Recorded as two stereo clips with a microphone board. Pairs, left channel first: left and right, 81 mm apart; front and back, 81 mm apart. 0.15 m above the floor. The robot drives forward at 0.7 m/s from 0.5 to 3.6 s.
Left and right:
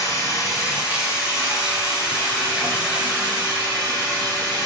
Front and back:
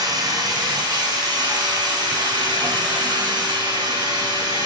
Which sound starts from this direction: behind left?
Running water, at 0.0 s.